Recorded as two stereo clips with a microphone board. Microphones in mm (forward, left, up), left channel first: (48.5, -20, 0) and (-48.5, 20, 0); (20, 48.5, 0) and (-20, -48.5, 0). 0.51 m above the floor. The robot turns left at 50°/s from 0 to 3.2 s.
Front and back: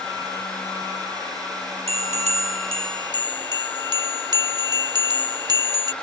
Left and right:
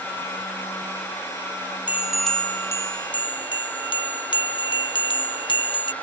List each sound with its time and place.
1.9 s a bell: 175° left; by 5.9 s 105° left